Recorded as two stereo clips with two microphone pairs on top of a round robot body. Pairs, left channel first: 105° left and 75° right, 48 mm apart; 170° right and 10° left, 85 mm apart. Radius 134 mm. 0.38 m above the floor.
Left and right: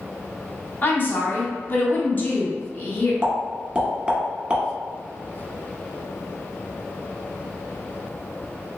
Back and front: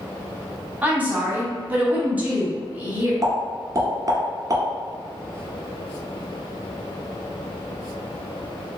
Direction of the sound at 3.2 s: 5° right.